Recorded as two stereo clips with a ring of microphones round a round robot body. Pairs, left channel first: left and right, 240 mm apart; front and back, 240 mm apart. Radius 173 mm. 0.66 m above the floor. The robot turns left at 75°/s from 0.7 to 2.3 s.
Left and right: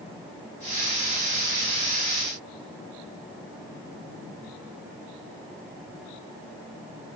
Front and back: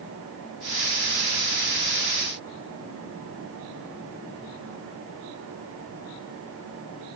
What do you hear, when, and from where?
Only background noise.